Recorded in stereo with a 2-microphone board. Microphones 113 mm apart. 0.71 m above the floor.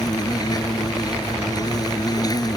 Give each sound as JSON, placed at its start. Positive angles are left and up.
{"t": 0.0, "sound": "an insect", "side_deg": 35}